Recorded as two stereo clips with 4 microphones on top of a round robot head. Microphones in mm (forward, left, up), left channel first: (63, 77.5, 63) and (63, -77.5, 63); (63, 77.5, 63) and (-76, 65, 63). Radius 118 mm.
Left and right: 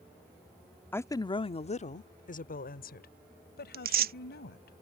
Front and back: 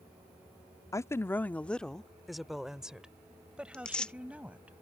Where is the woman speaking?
30° left; by 4.7 s 105° left.